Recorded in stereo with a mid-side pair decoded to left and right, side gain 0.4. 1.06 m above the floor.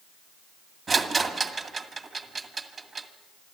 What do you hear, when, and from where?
0.9 s a rattle: 40° right, 2 m